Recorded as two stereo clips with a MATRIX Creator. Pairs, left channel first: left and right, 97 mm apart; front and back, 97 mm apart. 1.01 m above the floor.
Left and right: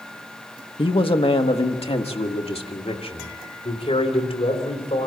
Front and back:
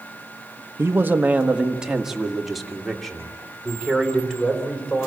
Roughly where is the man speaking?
Behind left.